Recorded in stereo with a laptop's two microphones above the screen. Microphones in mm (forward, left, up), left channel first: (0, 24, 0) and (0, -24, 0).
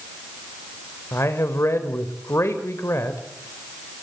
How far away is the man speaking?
About 4 m.